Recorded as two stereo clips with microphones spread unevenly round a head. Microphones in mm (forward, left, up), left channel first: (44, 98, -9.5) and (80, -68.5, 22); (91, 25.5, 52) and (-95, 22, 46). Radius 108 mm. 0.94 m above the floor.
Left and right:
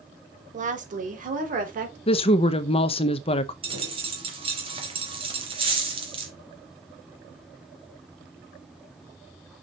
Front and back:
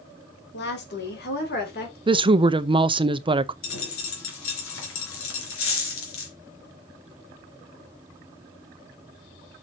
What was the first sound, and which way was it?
A woman speaking, 30° right.